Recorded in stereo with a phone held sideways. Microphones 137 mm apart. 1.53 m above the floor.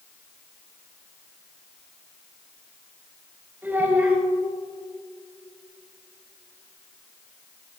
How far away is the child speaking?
About 5 m.